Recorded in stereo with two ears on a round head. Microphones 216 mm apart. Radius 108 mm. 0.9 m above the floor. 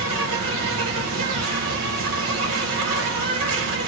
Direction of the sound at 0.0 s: 60° right (ahead or behind).